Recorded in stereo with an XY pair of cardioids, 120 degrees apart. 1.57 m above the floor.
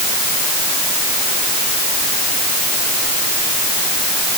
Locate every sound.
Only background noise.